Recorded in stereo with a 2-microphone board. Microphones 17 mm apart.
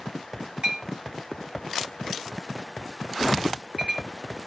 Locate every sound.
0.6 s a clink: 60° right (ahead or behind), 1.6 m